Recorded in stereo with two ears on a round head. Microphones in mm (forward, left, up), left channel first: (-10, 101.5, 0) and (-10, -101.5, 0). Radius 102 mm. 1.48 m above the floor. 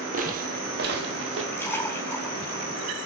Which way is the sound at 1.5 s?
10° left (ahead or behind).